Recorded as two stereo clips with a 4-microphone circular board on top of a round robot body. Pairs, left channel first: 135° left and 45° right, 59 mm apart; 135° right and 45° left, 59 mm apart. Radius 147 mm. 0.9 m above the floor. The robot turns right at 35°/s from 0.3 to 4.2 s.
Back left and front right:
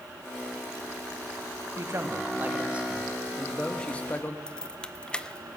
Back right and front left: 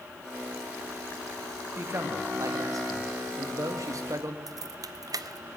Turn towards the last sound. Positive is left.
turn(degrees=60)